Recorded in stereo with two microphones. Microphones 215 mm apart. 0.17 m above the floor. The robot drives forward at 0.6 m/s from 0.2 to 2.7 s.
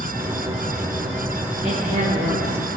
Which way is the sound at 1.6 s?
30° right (ahead or behind).